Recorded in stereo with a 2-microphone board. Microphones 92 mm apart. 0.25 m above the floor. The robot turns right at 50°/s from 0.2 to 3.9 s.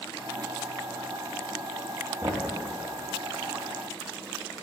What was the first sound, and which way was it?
Knocking, 35° right (ahead or behind).